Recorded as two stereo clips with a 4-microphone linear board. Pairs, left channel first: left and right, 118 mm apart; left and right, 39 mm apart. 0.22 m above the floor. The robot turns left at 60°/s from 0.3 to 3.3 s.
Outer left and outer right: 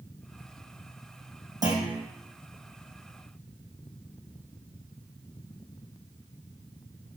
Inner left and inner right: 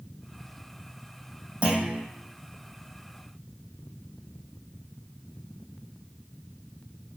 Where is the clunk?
30° right (ahead or behind), 4 m; by 2.0 s 55° right (ahead or behind), 4 m.